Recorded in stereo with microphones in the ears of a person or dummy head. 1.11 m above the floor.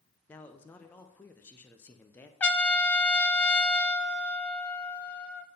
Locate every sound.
0.3 s a man speaking: 10° left (ahead or behind), 0.5 m
2.4 s a trumpet: 10° left (ahead or behind), 0.5 m